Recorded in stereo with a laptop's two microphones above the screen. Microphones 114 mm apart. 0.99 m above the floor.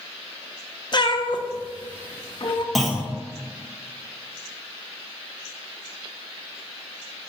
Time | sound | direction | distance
0.9 | a cat meowing | 45° left (ahead or behind) | 0.6 m
2.8 | a clunk | centre (ahead or behind) | 1.3 m